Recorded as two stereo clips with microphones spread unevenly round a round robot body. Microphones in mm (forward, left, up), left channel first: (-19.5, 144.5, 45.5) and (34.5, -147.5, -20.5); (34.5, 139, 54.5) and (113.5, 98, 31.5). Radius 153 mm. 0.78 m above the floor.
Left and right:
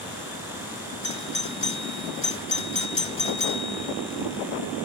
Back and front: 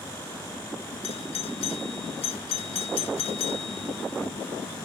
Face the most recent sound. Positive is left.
turn(degrees=170)